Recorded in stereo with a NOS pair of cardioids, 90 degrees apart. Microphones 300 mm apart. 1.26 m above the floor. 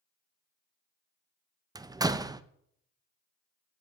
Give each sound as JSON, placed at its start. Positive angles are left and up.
{"t": 1.8, "sound": "a door slam", "azimuth_deg": -15, "distance_m": 0.7}